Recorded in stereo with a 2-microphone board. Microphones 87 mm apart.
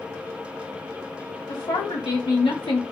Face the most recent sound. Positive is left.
turn(degrees=75)  # may be behind; listen again after turning